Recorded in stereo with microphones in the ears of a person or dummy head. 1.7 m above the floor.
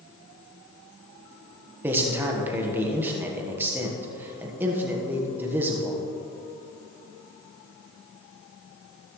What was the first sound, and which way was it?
A man speaking, 10° right (ahead or behind).